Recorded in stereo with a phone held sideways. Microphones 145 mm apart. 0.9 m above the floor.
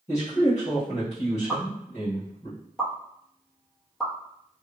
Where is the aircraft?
I don't hear an aircraft.